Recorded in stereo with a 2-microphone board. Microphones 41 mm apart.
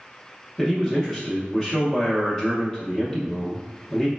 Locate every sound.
0.6 s a man speaking: 10° left (ahead or behind), 0.8 m